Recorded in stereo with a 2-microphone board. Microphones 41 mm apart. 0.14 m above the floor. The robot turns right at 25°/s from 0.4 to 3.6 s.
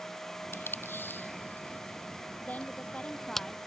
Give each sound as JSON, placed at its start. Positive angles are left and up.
{"t": 0.5, "sound": "tape being pulled", "side_deg": 70}
{"t": 2.4, "sound": "a woman speaking", "side_deg": 45}